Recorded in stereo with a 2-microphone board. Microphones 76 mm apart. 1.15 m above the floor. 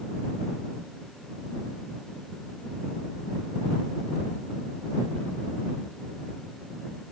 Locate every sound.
Only background noise.